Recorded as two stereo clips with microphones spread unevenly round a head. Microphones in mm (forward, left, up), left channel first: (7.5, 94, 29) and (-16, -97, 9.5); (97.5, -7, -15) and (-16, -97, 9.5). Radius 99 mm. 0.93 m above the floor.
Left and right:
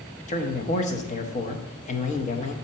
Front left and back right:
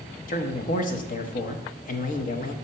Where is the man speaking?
30° left, 0.7 m.